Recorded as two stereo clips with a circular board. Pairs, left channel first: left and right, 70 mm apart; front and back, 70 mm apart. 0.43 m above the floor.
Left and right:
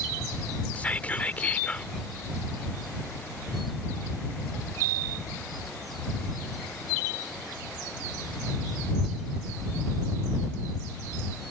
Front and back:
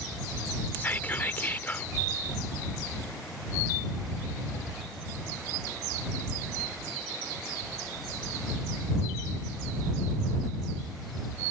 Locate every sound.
0.8 s whispering: 40° left